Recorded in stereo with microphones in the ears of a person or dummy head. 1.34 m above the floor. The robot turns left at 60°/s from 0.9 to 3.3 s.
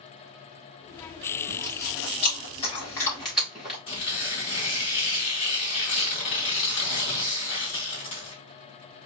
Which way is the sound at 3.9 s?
40° left (ahead or behind).